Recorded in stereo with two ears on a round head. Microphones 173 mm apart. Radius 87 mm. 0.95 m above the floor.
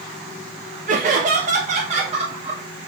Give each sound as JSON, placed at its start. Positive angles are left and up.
{"t": 0.9, "sound": "laughter", "side_deg": -40, "distance_m": 1.1}